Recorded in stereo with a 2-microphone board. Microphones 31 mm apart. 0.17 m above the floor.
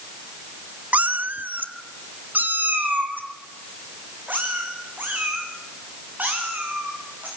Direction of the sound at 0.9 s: 60° right (ahead or behind).